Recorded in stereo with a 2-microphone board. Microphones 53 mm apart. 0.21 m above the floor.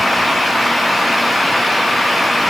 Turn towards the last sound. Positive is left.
No sound to turn to.